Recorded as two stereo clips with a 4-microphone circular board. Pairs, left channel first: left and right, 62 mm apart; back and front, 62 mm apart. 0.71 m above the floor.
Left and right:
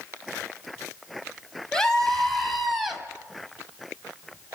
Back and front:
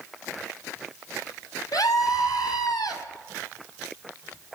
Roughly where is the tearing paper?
No tearing paper in this recording.